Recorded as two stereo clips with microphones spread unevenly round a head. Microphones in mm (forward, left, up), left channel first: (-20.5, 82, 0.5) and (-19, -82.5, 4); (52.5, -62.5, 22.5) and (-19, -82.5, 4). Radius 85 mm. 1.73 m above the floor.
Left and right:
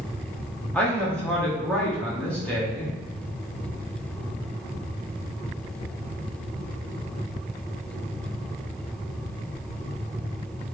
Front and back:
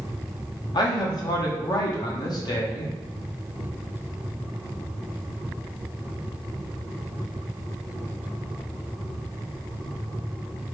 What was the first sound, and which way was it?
A man speaking, 5° left.